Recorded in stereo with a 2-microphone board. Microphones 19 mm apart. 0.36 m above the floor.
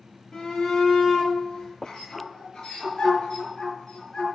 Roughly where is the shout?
Left.